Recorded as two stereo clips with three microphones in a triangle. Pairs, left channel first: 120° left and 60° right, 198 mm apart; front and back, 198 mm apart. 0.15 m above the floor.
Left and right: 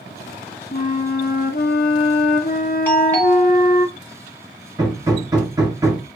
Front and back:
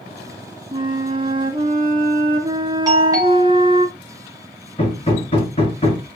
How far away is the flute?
About 0.6 m.